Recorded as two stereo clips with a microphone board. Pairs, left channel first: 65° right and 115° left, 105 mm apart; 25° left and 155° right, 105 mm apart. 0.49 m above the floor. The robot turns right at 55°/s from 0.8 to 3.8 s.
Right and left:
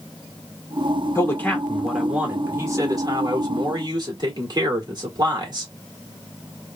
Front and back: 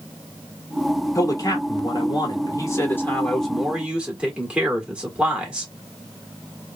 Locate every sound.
1.1 s a man speaking: 20° right, 1.4 m; by 5.7 s 125° left, 1.4 m